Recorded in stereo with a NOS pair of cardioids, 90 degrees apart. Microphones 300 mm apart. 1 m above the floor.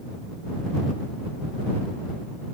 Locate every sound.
Only background noise.